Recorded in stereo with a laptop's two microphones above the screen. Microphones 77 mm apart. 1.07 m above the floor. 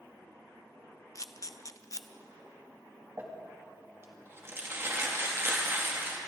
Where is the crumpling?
35° right (ahead or behind), 2 m.